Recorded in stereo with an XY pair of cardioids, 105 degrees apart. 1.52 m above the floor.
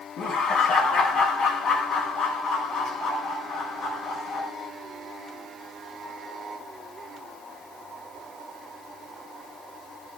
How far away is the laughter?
About 1.4 m.